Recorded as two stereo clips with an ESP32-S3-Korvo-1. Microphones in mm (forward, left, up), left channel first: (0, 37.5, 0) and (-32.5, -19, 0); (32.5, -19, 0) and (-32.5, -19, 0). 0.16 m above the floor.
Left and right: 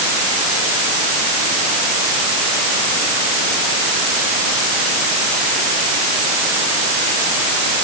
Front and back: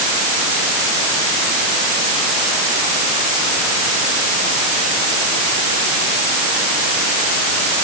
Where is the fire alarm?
I don't hear a fire alarm.